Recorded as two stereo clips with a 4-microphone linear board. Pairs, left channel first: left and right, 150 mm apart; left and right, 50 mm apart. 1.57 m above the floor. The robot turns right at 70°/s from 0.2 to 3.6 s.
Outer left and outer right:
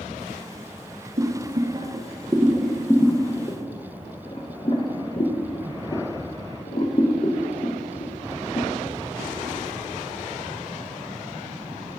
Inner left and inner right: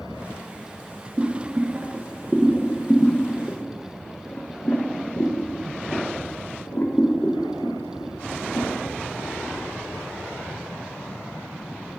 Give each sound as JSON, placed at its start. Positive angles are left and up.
{"t": 1.2, "sound": "boiling", "side_deg": -50, "distance_m": 1.0}